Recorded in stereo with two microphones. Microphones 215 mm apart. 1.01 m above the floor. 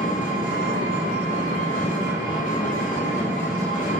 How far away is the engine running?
About 0.8 m.